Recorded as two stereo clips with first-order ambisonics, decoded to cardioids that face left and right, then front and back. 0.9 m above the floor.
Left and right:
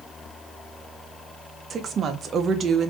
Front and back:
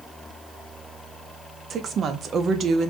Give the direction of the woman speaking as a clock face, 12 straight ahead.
5 o'clock.